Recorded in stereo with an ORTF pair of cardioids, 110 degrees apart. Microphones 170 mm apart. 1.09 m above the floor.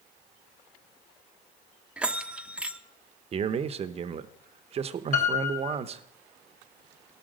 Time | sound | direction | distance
2.0 | a bell | 5° right | 0.7 m
3.3 | a man speaking | 40° right | 0.8 m
5.1 | a piano | 50° left | 3.5 m